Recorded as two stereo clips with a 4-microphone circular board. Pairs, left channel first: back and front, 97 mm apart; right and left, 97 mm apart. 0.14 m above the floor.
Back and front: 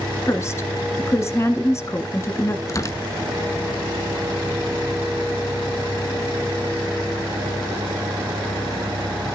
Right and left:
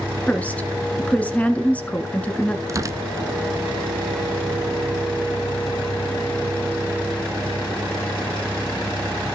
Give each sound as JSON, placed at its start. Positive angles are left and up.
{"t": 0.3, "sound": "a woman speaking", "azimuth_deg": -150, "distance_m": 1.3}
{"t": 2.7, "sound": "tearing paper", "azimuth_deg": 135, "distance_m": 0.5}